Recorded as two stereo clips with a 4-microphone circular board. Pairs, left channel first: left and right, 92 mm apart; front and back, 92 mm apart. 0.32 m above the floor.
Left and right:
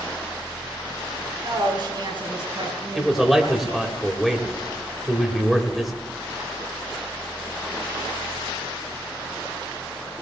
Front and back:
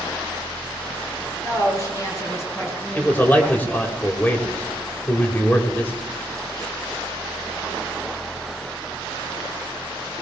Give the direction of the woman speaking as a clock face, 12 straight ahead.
2 o'clock.